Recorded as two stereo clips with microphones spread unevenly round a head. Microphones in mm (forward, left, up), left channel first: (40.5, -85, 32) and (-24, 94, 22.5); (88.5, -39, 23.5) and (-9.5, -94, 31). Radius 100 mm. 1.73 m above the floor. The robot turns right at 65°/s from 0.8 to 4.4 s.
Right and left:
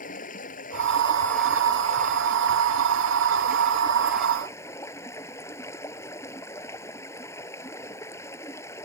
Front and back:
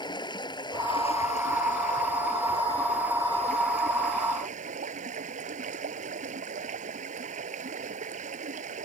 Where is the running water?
20° right; by 8.8 s 145° right.